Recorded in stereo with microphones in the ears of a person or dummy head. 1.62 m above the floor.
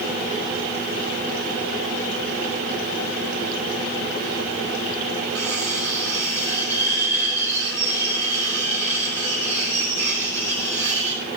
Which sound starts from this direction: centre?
Cutlery clinking, at 5.3 s.